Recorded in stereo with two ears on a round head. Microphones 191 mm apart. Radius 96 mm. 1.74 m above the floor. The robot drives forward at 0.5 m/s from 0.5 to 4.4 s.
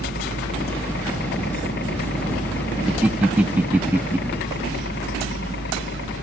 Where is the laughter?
5° right (ahead or behind); by 4.2 s 10° right (ahead or behind).